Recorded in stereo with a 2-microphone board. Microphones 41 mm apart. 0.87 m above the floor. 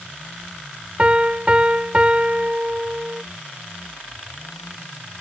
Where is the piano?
30° right (ahead or behind).